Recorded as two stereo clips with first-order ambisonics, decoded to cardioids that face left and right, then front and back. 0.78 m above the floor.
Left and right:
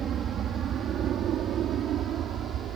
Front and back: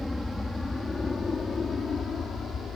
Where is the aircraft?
75° right; by 2.8 s 55° right.